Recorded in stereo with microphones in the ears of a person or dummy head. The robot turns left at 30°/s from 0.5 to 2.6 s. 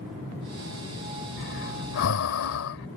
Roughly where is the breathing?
Left.